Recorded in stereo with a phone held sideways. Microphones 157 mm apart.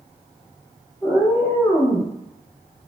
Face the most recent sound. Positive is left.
turn(degrees=15)  # may be behind; listen again after turning